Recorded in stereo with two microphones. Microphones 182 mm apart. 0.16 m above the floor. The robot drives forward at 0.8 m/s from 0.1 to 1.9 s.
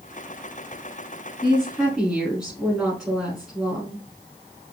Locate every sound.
1.4 s a woman speaking: 5° right (ahead or behind), 1.3 m